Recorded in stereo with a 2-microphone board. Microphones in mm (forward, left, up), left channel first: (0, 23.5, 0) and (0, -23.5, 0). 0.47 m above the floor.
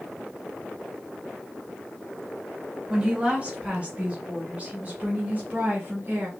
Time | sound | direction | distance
2.9 | a woman speaking | 25° right (ahead or behind) | 2.5 m